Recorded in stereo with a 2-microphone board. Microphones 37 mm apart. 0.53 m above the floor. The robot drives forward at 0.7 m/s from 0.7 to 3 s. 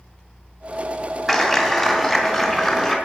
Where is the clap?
Centre (ahead or behind), 2.5 m.